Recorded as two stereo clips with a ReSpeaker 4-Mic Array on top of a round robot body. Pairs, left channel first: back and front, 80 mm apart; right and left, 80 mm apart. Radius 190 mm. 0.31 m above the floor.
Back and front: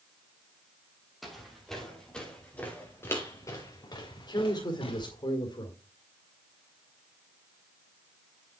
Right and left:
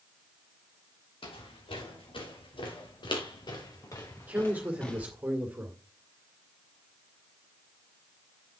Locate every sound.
1.2 s footsteps: 90° right, 5 m; by 5.1 s 170° right, 3 m
4.2 s a man speaking: 160° left, 2.5 m